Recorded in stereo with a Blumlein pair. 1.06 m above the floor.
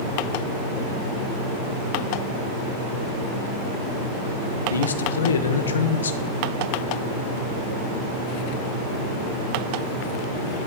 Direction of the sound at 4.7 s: 70° left.